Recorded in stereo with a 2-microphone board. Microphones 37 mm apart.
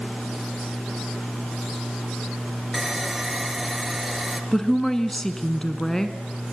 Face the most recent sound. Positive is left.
turn(degrees=15)  # may be behind; listen again after turning